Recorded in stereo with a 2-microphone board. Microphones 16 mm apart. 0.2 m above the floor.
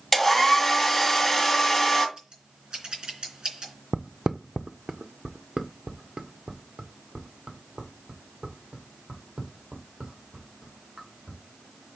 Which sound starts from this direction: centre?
A hair dryer, at 0.1 s.